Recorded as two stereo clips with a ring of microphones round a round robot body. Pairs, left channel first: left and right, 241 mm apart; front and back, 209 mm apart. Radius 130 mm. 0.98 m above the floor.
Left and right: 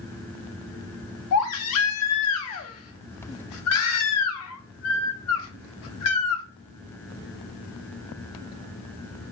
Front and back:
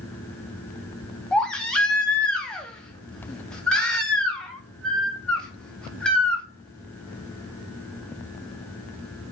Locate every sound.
1.3 s a baby crying: 85° left, 0.6 m